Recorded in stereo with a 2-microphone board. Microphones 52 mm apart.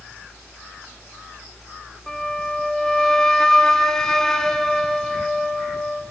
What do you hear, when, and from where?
2.1 s a flute: 10° left (ahead or behind), 1.2 m